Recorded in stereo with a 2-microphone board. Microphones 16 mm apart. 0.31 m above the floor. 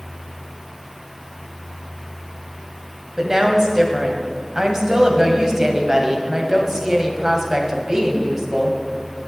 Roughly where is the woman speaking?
Right.